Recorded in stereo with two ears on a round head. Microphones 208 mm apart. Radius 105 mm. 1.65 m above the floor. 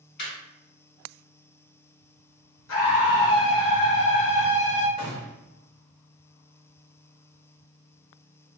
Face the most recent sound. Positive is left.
turn(degrees=0)  # may be behind; listen again after turning